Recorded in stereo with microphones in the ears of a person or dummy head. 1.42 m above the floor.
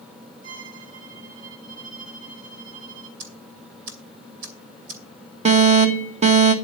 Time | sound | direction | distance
0.4 | a violin | 90° right | 8 m
3.2 | ticking | 70° right (ahead or behind) | 2.5 m
5.5 | an alarm | 30° right (ahead or behind) | 1.6 m